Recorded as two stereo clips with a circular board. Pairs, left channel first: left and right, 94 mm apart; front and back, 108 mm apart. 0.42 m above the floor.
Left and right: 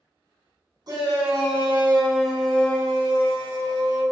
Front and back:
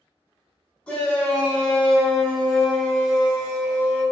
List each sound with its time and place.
0.9 s a shout: 75° right, 1.2 m; by 4.0 s 100° left, 1.4 m